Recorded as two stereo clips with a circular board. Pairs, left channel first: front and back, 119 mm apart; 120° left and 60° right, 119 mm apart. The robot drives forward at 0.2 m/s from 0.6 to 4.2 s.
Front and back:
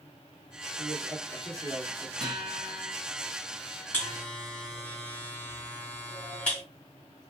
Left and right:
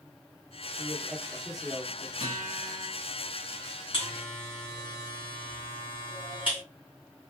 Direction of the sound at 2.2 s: 80° left.